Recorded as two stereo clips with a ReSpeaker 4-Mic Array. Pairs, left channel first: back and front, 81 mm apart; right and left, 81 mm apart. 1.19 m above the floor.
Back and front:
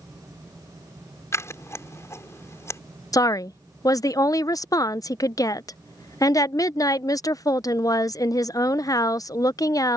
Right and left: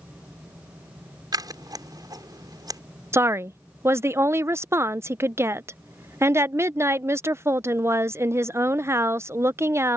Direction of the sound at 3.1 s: 145° left.